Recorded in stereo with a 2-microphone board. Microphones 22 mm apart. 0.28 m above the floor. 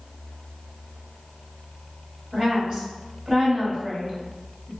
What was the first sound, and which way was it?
A woman speaking, 25° right (ahead or behind).